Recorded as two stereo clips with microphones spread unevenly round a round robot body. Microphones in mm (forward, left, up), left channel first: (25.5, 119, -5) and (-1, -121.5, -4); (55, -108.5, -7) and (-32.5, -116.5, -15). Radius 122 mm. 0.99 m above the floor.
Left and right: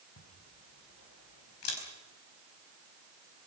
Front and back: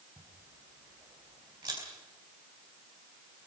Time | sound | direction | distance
0.2 | a camera shutter | 115° left | 4.5 m